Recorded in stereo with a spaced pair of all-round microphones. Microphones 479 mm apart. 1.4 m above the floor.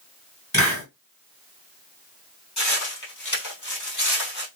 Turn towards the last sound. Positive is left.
turn(degrees=35)  # may be behind; listen again after turning